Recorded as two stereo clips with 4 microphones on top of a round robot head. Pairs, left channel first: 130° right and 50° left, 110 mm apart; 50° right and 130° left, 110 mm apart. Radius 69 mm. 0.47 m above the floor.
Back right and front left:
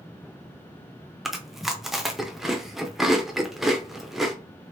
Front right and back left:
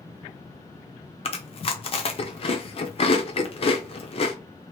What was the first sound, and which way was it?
Chewing, 40° right.